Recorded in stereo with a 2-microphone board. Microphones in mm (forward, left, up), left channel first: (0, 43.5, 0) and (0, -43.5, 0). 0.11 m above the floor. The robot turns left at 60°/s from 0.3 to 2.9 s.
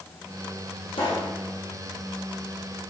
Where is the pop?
70° left (ahead or behind), 4 m; by 1.3 s 80° left, 4 m.